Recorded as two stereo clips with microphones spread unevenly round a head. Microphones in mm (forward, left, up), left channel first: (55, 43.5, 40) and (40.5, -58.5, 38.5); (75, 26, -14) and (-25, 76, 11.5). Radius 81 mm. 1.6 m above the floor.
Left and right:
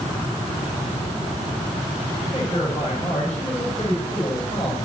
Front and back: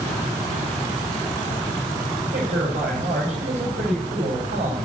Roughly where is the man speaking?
Behind left.